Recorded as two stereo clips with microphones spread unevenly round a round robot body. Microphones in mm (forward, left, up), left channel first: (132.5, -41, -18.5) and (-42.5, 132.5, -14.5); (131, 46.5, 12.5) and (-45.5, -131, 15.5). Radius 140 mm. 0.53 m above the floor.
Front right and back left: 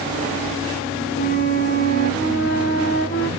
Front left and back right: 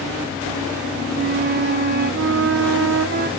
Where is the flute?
100° right, 1.0 m.